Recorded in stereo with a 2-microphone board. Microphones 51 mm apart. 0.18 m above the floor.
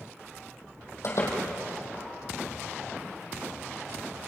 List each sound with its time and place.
1.0 s a door slam: 60° left (ahead or behind), 5 m